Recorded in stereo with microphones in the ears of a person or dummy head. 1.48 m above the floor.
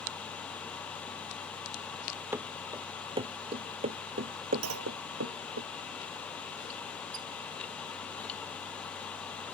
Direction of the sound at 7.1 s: 70° right (ahead or behind).